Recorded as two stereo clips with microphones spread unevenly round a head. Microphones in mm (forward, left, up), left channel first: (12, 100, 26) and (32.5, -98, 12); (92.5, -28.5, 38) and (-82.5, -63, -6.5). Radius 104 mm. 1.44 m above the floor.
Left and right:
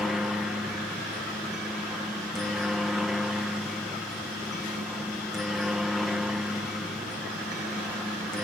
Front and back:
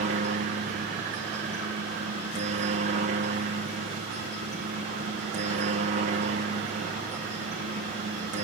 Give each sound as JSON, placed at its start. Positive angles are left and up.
{"t": 0.0, "sound": "a helicopter", "azimuth_deg": -170}